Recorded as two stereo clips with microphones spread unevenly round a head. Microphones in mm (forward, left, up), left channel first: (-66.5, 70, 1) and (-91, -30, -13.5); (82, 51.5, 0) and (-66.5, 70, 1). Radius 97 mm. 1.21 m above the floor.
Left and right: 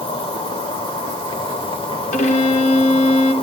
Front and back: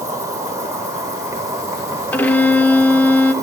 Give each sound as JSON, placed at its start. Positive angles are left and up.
{"t": 0.0, "sound": "an insect", "azimuth_deg": 105, "distance_m": 2.5}
{"t": 2.1, "sound": "a violin", "azimuth_deg": 70, "distance_m": 1.3}